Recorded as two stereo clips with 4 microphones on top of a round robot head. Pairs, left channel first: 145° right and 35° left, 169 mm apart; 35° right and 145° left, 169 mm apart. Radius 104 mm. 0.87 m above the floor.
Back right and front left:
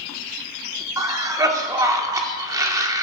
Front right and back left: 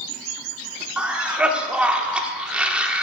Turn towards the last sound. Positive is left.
turn(degrees=70)